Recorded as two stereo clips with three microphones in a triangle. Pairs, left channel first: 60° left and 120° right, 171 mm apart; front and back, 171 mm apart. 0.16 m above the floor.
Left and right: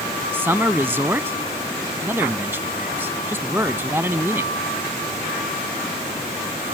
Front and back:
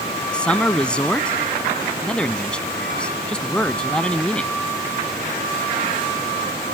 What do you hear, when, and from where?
0.3 s a man speaking: 70° right